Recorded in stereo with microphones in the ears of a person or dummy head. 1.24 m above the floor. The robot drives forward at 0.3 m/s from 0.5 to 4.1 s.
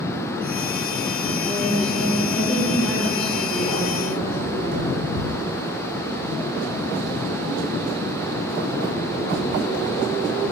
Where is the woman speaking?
5° left (ahead or behind), 1.3 m.